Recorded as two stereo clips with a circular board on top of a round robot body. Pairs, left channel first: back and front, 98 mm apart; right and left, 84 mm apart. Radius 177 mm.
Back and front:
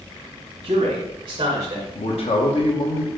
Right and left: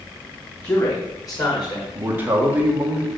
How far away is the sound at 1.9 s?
About 1.1 m.